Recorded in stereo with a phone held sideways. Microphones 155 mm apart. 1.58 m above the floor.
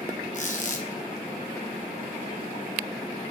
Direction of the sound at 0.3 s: 50° left (ahead or behind).